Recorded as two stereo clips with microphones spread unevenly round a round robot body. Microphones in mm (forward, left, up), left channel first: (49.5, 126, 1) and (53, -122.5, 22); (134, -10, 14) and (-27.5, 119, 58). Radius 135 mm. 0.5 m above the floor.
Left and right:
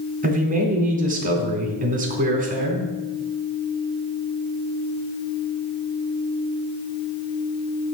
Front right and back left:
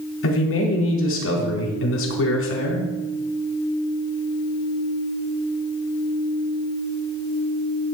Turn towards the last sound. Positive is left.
turn(degrees=-30)